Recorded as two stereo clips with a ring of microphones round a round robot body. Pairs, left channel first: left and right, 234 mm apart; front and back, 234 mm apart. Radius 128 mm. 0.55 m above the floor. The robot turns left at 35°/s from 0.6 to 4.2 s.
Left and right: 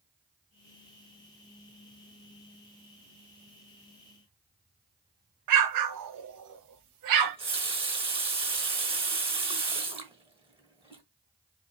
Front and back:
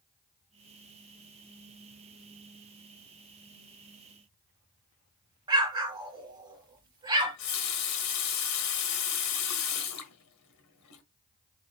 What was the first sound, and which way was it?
An explosion, 105° right.